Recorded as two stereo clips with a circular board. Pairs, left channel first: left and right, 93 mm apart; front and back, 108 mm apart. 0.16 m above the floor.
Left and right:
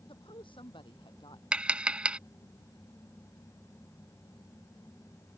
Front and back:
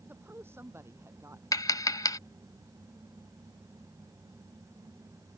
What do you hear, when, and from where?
0.1 s a woman speaking: 110° left; by 1.4 s 120° left
1.5 s tapping: 20° right